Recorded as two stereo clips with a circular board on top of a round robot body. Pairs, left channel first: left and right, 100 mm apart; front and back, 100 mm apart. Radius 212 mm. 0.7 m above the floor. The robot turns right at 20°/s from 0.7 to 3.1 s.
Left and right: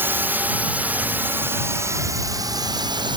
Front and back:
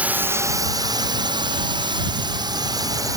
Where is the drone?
125° right; by 3.2 s 130° right.